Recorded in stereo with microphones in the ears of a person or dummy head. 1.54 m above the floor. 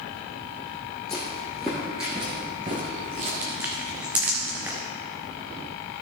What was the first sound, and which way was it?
Footsteps, 15° left (ahead or behind).